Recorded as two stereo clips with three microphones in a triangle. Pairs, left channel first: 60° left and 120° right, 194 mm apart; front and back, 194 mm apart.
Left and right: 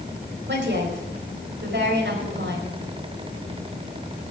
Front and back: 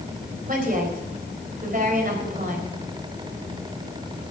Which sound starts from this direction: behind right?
A woman speaking, at 0.5 s.